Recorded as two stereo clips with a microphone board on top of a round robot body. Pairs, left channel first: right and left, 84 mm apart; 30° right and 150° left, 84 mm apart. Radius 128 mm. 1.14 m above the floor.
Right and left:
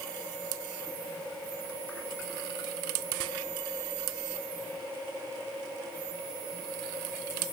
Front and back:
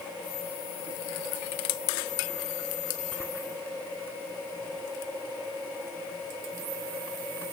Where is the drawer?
I don't hear a drawer.